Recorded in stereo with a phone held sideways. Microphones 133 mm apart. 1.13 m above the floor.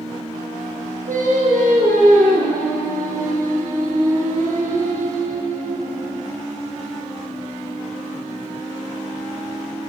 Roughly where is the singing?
Right.